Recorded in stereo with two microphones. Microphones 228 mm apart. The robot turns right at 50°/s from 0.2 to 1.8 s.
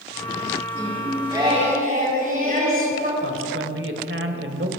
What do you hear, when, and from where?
0.7 s singing: 170° left, 4 m; by 3.1 s 140° right, 4 m
3.2 s a man speaking: 60° right (ahead or behind), 1.9 m